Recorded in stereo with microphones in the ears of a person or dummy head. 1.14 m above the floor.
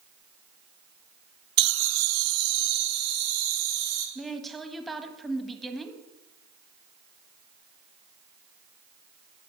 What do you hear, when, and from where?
1.6 s laughter: 50° right (ahead or behind), 0.5 m; by 4.0 s 80° right, 4 m
4.2 s a woman speaking: centre (ahead or behind), 1.5 m